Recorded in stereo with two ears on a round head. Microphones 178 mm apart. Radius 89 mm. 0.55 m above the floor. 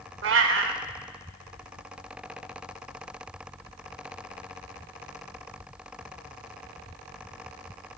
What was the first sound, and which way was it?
A cat meowing, 65° right (ahead or behind).